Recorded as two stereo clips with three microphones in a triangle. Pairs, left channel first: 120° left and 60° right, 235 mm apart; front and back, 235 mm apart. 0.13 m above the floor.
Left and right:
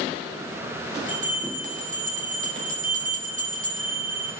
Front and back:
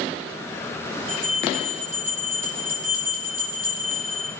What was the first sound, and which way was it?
A bell, 10° right.